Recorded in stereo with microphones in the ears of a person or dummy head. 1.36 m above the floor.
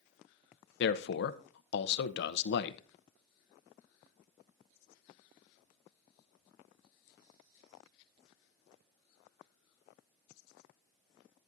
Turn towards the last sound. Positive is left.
turn(degrees=65)  # may be behind; listen again after turning